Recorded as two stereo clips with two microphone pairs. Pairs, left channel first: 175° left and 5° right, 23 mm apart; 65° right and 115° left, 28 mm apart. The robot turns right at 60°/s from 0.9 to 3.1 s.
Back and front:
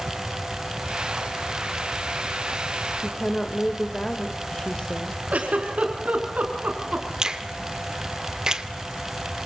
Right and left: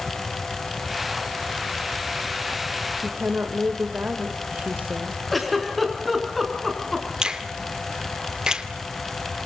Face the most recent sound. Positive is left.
turn(degrees=55)